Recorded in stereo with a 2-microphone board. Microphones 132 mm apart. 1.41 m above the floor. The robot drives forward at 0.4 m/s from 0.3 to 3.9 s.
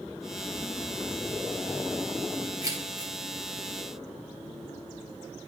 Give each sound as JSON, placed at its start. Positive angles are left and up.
{"t": 2.6, "sound": "keys jangling", "side_deg": -25, "distance_m": 1.5}